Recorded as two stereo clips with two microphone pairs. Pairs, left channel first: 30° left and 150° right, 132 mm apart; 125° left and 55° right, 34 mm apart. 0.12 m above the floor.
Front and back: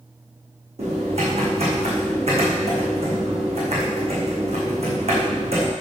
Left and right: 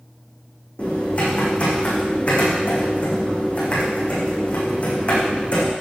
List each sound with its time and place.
0.8 s typing on a keyboard: 175° left, 4.5 m